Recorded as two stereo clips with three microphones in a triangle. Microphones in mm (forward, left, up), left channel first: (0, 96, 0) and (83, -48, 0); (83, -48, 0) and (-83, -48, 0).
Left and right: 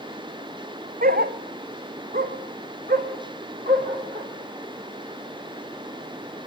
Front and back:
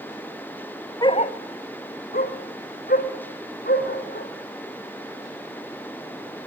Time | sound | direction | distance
1.0 | a dog barking | 65° right | 0.5 m